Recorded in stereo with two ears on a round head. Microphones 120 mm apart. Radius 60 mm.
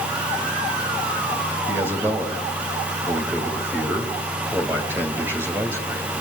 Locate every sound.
1.7 s a man speaking: 15° right (ahead or behind), 2.5 m